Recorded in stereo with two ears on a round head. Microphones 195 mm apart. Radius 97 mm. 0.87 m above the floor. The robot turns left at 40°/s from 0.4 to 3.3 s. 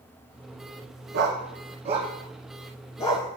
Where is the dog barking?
55° right (ahead or behind), 2.5 m; by 3.3 s 25° left (ahead or behind), 2.5 m.